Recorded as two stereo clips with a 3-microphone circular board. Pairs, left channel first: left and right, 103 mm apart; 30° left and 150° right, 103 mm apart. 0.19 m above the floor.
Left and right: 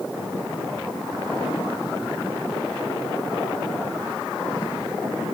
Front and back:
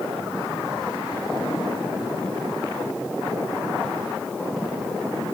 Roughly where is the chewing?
No chewing in this recording.